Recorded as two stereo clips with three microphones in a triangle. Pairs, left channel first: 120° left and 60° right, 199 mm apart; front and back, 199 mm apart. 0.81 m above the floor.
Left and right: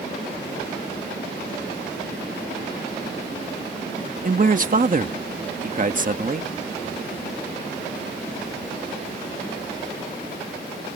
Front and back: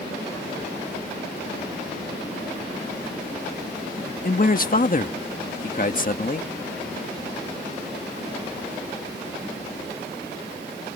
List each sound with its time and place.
4.2 s a man speaking: 30° right